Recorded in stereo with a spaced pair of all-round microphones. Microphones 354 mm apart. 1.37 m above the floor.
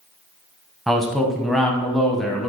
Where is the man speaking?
Centre (ahead or behind), 0.7 m.